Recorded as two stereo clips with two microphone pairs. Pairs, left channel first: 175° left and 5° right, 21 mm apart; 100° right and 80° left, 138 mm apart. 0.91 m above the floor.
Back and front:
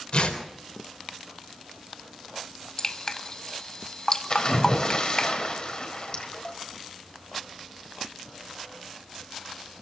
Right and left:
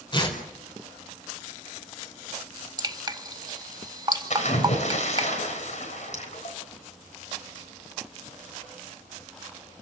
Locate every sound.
0.1 s tearing paper: 155° right, 4 m
2.8 s dripping: 125° left, 1.0 m
4.3 s a splash: 135° right, 4 m